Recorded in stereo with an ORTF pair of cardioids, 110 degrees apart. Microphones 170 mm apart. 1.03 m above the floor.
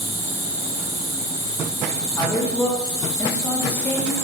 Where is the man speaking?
10° left, 0.5 m.